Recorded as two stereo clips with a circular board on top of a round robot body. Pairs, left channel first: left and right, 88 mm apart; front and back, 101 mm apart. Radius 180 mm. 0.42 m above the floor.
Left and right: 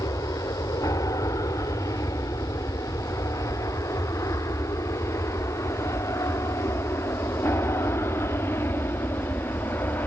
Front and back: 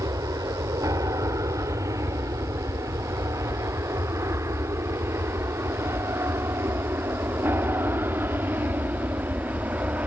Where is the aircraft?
130° left; by 10.1 s 125° left.